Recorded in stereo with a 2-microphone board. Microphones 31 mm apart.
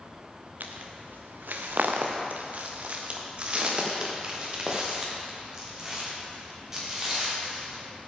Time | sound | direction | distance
0.6 | footsteps | 75° right (ahead or behind) | 1.5 m